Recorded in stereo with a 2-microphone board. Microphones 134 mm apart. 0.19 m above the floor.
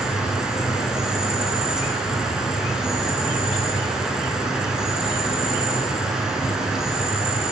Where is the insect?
5° right (ahead or behind), 0.9 m.